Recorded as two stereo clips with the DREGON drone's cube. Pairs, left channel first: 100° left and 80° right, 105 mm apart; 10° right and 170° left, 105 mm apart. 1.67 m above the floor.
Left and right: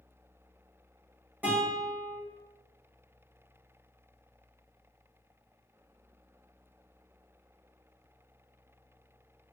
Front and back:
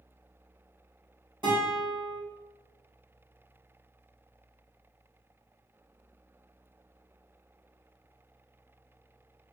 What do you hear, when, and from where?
1.4 s a guitar: 150° right, 1.9 m